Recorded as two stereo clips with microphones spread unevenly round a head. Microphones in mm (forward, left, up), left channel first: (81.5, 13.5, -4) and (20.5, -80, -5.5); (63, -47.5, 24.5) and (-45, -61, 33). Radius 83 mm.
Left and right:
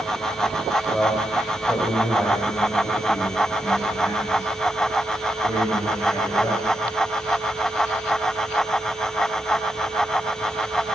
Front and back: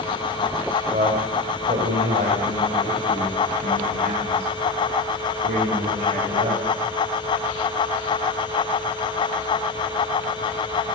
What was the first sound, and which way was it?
A man speaking, 145° left.